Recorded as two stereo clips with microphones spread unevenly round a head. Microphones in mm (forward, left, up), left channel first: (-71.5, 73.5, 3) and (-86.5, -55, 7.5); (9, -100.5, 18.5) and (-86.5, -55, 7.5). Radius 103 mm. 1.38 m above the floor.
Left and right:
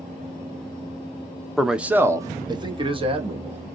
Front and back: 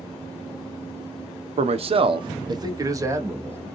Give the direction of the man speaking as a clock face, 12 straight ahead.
6 o'clock.